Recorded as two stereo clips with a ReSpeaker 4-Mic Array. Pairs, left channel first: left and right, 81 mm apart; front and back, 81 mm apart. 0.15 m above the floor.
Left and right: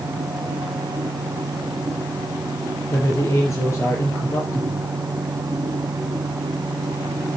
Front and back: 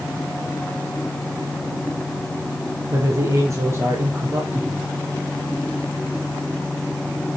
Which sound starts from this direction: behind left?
A man speaking, at 2.9 s.